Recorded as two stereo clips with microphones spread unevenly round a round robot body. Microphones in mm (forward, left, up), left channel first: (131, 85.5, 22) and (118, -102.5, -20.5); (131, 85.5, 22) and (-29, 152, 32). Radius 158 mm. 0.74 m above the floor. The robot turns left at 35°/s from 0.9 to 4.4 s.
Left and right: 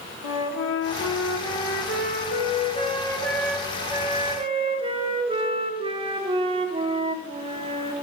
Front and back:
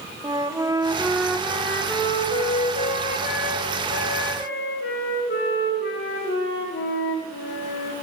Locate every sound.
0.2 s a flute: 85° left, 1.1 m; by 7.9 s 35° right, 1.1 m